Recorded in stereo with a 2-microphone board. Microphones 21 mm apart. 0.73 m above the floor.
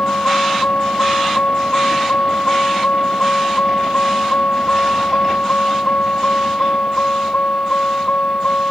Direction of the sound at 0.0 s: 85° left.